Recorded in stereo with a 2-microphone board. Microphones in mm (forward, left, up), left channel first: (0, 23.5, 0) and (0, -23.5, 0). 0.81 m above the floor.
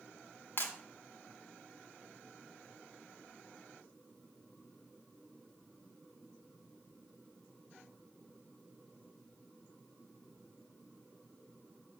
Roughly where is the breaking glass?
Left.